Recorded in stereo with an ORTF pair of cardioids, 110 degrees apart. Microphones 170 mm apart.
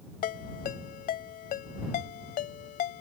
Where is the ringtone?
65° left.